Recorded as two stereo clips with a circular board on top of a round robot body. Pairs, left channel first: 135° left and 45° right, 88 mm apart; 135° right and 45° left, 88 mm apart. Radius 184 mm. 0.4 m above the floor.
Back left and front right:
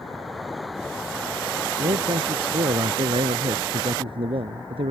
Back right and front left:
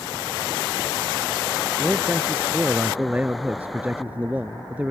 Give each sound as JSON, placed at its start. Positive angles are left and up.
{"t": 1.8, "sound": "a man speaking", "azimuth_deg": -30}